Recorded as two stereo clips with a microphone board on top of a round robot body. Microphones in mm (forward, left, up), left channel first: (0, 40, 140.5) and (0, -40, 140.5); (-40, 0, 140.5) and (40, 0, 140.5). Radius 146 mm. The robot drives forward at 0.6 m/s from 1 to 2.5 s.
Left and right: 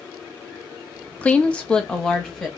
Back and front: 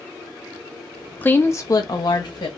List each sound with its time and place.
1.2 s a woman speaking: 140° left, 0.6 m; by 2.5 s 170° left, 1.1 m